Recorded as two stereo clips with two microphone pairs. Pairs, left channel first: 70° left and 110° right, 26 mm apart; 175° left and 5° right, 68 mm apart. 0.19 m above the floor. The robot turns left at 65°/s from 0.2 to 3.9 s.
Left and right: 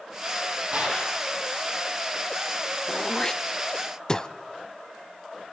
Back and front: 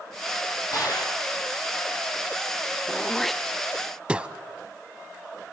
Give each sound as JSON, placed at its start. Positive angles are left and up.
{"t": 0.7, "sound": "a gunshot", "azimuth_deg": -150, "distance_m": 7.0}
{"t": 2.9, "sound": "throat clearing", "azimuth_deg": 115, "distance_m": 0.5}